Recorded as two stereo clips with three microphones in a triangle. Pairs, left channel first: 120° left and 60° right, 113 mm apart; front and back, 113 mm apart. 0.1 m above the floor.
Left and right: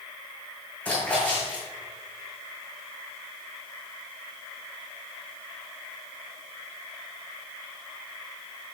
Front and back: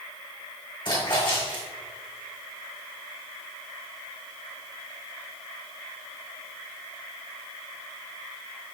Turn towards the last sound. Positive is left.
turn(degrees=45)